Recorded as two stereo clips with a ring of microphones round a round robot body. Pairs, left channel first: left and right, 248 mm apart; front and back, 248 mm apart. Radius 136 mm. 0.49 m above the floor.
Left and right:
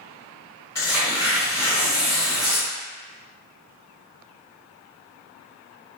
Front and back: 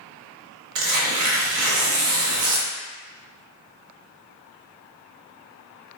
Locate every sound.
0.8 s tearing paper: 170° left, 0.7 m